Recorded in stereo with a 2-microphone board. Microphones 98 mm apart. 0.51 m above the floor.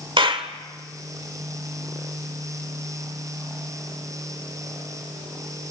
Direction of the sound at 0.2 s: 60° right (ahead or behind).